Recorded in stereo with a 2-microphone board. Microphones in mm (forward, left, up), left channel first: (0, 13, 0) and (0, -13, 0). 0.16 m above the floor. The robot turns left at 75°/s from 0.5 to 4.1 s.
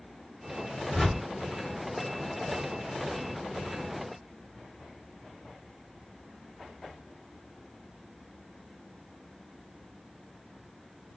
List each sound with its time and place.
0.9 s a whoosh: 5° left (ahead or behind), 1.7 m; by 1.2 s 20° left (ahead or behind), 1.7 m